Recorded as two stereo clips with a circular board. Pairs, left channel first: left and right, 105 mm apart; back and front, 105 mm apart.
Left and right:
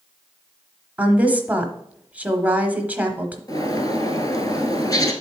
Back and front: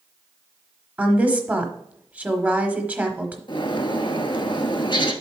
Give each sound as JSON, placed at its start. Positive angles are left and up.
{"t": 1.0, "sound": "a woman speaking", "azimuth_deg": -50, "distance_m": 0.9}
{"t": 3.5, "sound": "a bird", "azimuth_deg": 140, "distance_m": 1.0}